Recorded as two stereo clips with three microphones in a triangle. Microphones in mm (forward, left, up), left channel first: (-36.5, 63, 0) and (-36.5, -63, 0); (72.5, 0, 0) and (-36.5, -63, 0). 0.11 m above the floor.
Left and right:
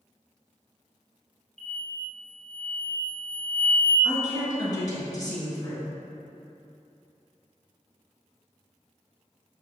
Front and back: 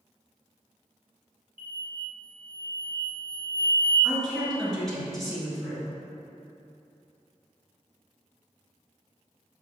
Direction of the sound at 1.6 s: 160° left.